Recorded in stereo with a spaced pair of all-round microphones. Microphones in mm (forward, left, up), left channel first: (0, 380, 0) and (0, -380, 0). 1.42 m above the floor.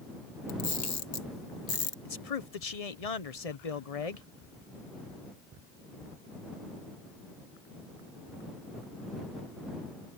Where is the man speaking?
50° left (ahead or behind).